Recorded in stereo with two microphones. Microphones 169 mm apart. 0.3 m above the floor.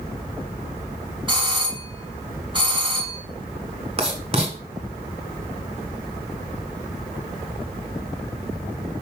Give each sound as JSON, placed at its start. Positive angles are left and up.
{"t": 1.3, "sound": "a doorbell", "side_deg": -30, "distance_m": 1.7}
{"t": 4.0, "sound": "writing", "side_deg": -35, "distance_m": 1.8}